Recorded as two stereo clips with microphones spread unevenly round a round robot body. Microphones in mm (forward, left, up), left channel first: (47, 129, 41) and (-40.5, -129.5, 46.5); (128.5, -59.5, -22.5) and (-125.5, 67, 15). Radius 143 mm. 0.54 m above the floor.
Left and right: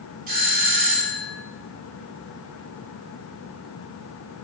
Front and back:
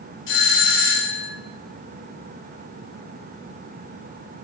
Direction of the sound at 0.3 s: 55° right.